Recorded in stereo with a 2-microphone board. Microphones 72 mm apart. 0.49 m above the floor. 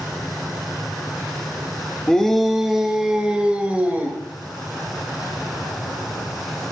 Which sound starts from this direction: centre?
A shout, at 2.1 s.